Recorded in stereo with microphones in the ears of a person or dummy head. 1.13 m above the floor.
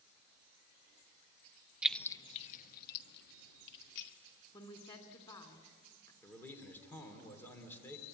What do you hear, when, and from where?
1.8 s keys jangling: 10° right (ahead or behind), 0.7 m; by 4.1 s 70° left (ahead or behind), 2 m
4.5 s a woman speaking: 30° left (ahead or behind), 2.5 m
6.2 s a man speaking: 10° left (ahead or behind), 3 m